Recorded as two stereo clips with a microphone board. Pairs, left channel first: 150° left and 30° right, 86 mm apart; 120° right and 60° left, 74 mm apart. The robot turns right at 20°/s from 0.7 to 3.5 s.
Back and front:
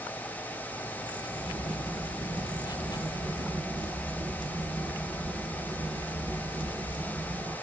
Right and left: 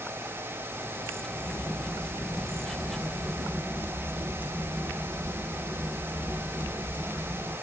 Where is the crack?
50° right, 0.7 m; by 7.5 s 10° right, 0.7 m.